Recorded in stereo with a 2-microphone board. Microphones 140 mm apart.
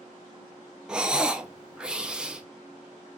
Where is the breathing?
5° right (ahead or behind), 0.5 m.